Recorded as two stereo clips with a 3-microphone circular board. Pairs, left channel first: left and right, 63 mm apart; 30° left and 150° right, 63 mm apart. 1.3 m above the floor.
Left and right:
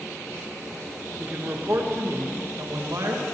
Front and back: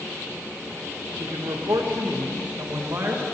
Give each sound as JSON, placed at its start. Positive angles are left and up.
{"t": 1.2, "sound": "a man speaking", "azimuth_deg": -150, "distance_m": 1.8}